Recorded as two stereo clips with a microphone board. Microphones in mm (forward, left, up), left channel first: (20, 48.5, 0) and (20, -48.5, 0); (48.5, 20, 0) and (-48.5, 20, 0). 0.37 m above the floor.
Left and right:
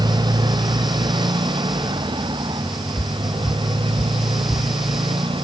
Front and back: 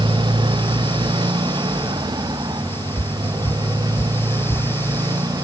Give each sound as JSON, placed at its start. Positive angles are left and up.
{"t": 0.0, "sound": "a motorcycle", "azimuth_deg": -140}
{"t": 3.0, "sound": "footsteps", "azimuth_deg": 35}